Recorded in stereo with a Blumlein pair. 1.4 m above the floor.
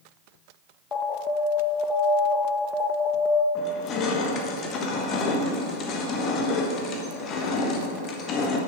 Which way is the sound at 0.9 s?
20° left.